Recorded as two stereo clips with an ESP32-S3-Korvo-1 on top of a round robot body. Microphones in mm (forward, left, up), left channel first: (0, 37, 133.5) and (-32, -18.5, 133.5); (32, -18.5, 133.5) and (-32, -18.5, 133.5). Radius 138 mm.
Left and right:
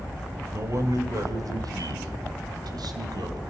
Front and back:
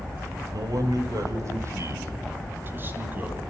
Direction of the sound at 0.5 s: 160° right.